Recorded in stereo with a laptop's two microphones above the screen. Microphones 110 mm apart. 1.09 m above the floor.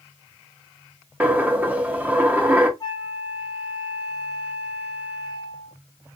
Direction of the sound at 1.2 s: 15° right (ahead or behind).